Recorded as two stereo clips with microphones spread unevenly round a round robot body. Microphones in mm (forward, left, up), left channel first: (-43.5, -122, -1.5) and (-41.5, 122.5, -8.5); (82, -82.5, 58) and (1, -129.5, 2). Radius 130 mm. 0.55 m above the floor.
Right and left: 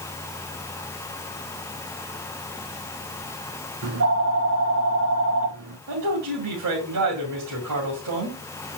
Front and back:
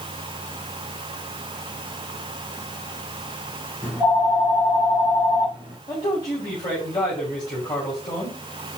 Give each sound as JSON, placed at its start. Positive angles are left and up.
{"t": 3.8, "sound": "a phone ringing", "azimuth_deg": 130, "distance_m": 3.5}
{"t": 5.9, "sound": "a man speaking", "azimuth_deg": 100, "distance_m": 2.5}